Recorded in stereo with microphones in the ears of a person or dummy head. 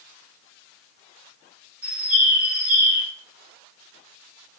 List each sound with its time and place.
1.8 s a bird: 5° right (ahead or behind), 2 m